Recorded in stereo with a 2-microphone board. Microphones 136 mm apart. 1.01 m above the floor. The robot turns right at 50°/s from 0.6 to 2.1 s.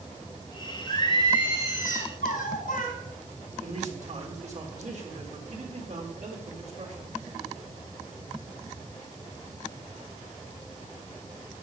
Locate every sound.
0.9 s singing: 20° left, 4 m; by 3.0 s 80° left, 4 m
3.6 s a man speaking: 55° right (ahead or behind), 3.5 m